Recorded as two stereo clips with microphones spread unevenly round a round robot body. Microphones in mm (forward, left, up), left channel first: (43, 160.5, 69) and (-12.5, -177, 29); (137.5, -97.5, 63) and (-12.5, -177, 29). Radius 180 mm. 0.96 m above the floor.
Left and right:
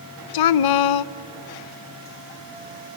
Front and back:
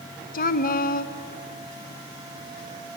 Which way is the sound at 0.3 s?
75° left.